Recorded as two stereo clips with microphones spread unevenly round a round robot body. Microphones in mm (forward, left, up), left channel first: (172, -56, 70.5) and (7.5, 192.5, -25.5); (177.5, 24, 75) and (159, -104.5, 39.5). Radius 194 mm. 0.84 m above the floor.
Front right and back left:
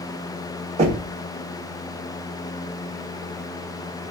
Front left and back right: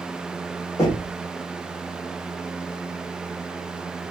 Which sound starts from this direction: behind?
Knocking, at 0.8 s.